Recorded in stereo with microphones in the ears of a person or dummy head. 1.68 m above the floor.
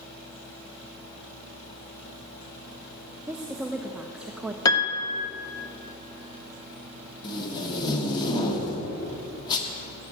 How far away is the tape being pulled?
About 1.6 m.